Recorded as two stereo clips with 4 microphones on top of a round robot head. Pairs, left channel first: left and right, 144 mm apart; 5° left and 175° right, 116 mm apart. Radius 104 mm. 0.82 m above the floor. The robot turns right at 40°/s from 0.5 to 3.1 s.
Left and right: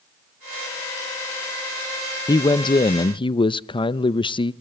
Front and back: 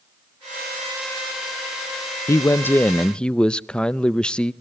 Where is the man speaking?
45° left, 0.5 m; by 4.5 s 80° left, 0.5 m.